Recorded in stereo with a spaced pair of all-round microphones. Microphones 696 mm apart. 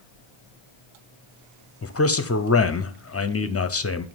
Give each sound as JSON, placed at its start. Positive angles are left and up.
{"t": 1.8, "sound": "a man speaking", "side_deg": 25, "distance_m": 0.5}